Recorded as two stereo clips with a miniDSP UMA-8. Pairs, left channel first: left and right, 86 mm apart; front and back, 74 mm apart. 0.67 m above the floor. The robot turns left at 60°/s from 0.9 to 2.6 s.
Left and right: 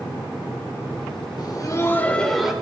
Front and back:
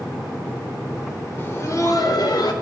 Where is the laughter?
60° left, 3 m; by 2.5 s 10° right, 3 m.